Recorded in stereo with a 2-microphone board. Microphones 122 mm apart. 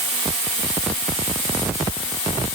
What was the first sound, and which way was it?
Only background noise.